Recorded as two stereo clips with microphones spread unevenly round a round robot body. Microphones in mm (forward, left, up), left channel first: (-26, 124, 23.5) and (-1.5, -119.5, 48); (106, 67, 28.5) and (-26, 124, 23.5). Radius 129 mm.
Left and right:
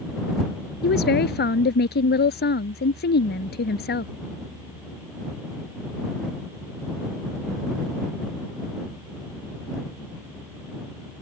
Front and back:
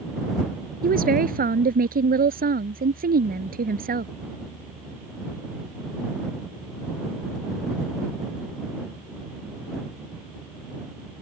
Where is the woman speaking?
145° left.